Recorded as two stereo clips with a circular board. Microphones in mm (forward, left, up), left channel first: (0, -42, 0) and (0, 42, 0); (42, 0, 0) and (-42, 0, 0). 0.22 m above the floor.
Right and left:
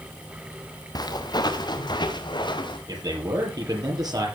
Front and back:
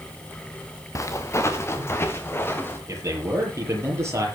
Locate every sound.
0.9 s footsteps: 55° right, 1.9 m; by 2.8 s 65° right, 3 m
2.9 s a man speaking: 125° left, 6.5 m